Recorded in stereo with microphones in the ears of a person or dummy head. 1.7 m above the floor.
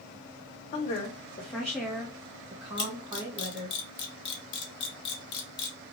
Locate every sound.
0.7 s a woman speaking: 30° left (ahead or behind), 0.7 m; by 3.8 s 30° right (ahead or behind), 1.5 m
2.8 s a camera shutter: 30° left (ahead or behind), 0.9 m